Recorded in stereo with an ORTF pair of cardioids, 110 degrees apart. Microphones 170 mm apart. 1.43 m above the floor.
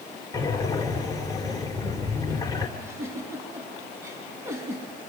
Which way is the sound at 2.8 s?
15° right.